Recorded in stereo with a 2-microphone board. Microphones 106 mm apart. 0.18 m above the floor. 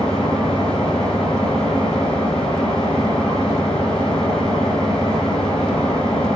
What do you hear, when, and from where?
0.0 s an engine running: 10° left (ahead or behind), 3.5 m